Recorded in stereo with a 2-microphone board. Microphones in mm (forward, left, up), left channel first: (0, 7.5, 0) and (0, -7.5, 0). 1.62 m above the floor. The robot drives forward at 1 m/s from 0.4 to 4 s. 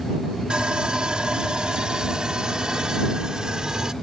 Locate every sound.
0.5 s sawing: 80° right; by 3.9 s 45° right (ahead or behind)